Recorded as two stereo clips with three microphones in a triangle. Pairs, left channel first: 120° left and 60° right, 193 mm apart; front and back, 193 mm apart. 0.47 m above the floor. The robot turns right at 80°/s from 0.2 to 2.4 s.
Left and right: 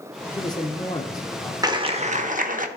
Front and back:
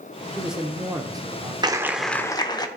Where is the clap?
120° right, 0.8 m; by 2.7 s 60° right, 0.8 m.